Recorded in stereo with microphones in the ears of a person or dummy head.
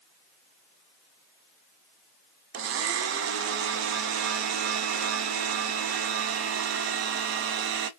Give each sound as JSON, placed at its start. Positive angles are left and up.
{"t": 2.5, "sound": "a blender", "side_deg": -65, "distance_m": 0.5}